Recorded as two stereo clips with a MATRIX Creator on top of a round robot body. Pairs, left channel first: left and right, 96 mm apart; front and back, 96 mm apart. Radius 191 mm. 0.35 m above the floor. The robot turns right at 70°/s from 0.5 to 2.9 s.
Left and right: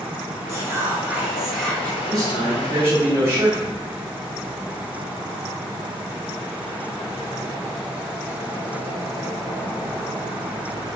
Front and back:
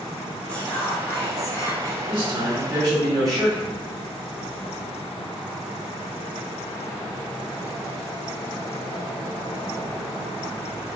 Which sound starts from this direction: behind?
A man speaking, at 2.1 s.